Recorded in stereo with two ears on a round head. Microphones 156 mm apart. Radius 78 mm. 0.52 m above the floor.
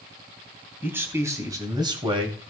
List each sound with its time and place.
0.8 s a man speaking: 10° right (ahead or behind), 3 m; by 2.4 s 35° right (ahead or behind), 2.5 m